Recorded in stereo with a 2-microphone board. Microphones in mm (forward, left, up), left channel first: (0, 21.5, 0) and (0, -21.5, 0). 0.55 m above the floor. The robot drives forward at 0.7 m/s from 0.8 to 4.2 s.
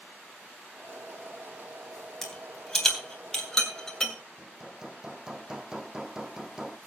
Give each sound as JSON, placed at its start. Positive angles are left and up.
{"t": 2.2, "sound": "a rattle", "side_deg": 10, "distance_m": 3.5}
{"t": 4.4, "sound": "hammering", "side_deg": -10, "distance_m": 1.1}